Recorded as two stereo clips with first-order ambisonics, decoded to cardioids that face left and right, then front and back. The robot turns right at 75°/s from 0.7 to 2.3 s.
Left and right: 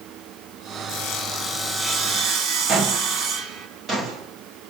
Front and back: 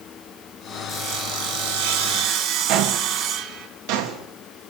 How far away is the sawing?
About 3.5 m.